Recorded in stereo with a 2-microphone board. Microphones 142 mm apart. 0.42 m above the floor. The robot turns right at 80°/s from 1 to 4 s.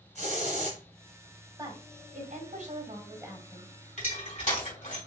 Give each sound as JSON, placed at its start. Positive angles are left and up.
{"t": 0.1, "sound": "a hiss", "side_deg": -55, "distance_m": 1.8}
{"t": 1.6, "sound": "a woman speaking", "azimuth_deg": -150, "distance_m": 1.9}
{"t": 4.0, "sound": "crushing", "side_deg": 65, "distance_m": 3.0}